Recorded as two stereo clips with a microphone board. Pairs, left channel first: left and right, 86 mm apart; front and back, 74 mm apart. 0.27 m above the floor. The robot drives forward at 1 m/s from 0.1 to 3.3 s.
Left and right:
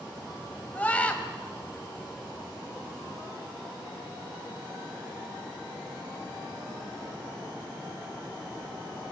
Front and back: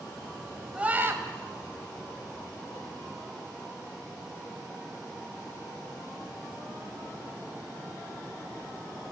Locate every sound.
0.8 s a scream: 130° left, 0.9 m; by 1.2 s 155° left, 1.2 m